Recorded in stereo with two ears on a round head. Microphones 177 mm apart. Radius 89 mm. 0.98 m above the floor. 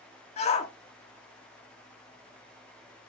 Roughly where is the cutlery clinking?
I don't hear cutlery clinking.